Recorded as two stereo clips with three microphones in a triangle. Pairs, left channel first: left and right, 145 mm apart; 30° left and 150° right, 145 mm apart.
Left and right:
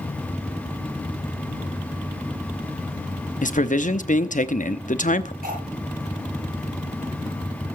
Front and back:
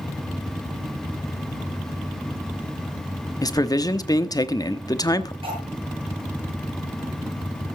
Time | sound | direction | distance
3.4 | a man speaking | 90° left | 1.0 m
5.4 | cutlery clinking | 100° right | 8 m